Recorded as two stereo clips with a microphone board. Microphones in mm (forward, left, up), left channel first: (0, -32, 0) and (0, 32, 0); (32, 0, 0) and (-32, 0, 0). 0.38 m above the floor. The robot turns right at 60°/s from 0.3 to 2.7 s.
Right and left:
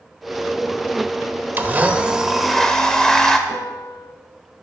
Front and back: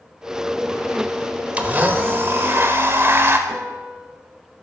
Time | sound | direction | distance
1.6 | a blender | 125° left | 1.3 m
3.5 | a piano | 105° right | 1.4 m